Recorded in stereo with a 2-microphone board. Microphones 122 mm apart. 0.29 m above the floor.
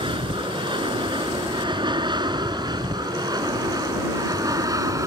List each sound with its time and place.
0.0 s an aircraft: 40° right (ahead or behind); by 5.1 s 25° right (ahead or behind)